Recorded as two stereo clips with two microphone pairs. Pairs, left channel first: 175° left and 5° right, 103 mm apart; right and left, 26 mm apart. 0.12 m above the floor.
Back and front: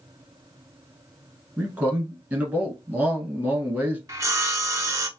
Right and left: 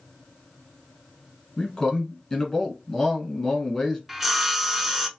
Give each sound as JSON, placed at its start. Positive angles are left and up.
{"t": 1.6, "sound": "a man speaking", "azimuth_deg": -60, "distance_m": 1.1}
{"t": 4.1, "sound": "sawing", "azimuth_deg": 20, "distance_m": 0.5}